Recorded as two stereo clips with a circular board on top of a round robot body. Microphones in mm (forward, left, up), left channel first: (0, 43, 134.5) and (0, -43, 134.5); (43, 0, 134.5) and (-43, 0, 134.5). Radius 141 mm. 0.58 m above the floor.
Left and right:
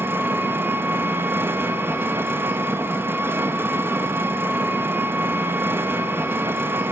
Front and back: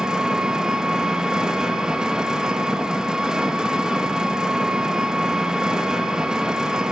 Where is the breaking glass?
No breaking glass in this recording.